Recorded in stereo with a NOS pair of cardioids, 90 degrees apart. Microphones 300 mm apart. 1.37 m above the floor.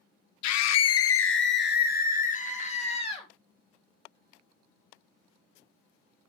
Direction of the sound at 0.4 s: 70° left.